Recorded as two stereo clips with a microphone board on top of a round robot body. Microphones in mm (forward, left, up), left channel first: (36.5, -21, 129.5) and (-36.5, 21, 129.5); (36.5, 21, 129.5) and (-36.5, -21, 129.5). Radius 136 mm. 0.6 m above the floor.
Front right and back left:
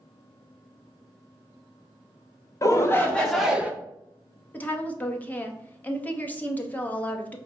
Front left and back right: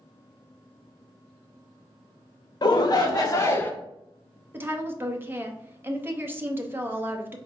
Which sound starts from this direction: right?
A woman speaking, at 4.5 s.